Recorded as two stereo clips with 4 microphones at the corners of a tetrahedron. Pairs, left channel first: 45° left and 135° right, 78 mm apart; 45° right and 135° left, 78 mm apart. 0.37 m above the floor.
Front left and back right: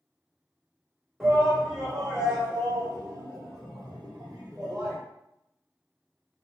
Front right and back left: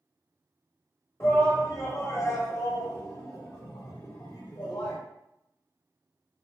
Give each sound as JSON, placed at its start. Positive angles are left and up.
{"t": 1.2, "sound": "a shout", "azimuth_deg": -50, "distance_m": 1.3}